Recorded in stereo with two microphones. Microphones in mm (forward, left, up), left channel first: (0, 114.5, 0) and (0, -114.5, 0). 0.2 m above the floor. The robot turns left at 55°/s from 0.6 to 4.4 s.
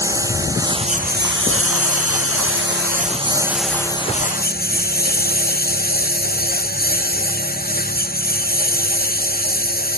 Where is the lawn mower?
15° right (ahead or behind); by 10.0 s 40° left (ahead or behind).